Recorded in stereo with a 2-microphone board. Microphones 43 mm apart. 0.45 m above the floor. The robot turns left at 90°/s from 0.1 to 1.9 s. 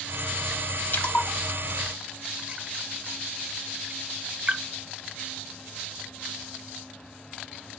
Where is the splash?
50° left (ahead or behind), 1.0 m; by 4.6 s 35° right (ahead or behind), 1.0 m.